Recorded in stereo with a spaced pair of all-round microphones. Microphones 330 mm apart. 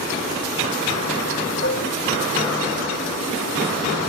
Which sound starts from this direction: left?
Dishes clattering, at 1.6 s.